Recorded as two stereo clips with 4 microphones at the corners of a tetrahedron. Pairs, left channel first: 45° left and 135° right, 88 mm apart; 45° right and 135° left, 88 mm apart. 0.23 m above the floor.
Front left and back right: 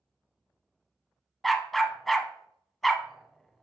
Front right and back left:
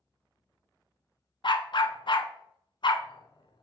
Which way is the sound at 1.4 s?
45° right.